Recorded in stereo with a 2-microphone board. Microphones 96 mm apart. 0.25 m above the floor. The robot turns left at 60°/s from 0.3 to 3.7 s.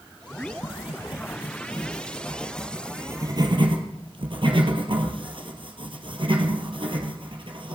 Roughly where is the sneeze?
I don't hear a sneeze.